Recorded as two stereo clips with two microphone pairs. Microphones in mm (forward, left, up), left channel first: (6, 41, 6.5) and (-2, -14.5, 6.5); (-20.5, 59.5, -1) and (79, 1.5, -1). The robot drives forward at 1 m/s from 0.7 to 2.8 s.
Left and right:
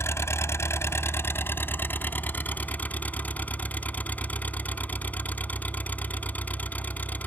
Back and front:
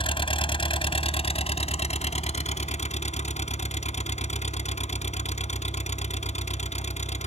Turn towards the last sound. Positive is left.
turn(degrees=140)